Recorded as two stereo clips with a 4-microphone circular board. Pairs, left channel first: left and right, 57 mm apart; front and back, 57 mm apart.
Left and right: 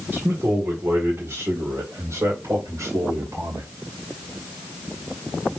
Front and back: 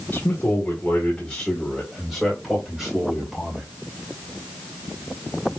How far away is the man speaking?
About 2 m.